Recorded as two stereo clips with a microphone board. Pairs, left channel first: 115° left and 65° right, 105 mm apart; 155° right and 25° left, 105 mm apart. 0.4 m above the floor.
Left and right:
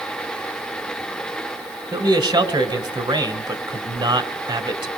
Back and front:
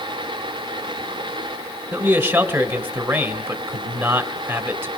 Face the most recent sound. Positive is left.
turn(degrees=-45)